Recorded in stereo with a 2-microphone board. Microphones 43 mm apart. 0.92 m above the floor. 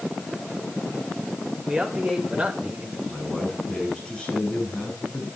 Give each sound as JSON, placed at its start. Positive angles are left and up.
{"t": 1.7, "sound": "a man speaking", "side_deg": -15, "distance_m": 4.0}
{"t": 3.1, "sound": "a man speaking", "side_deg": 15, "distance_m": 7.5}